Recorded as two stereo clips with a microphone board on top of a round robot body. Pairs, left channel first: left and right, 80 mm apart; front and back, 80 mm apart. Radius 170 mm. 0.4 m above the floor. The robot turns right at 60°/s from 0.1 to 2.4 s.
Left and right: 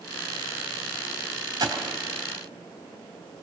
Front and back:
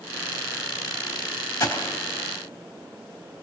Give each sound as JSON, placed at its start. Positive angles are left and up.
{"t": 1.6, "sound": "a gunshot", "azimuth_deg": -50, "distance_m": 3.0}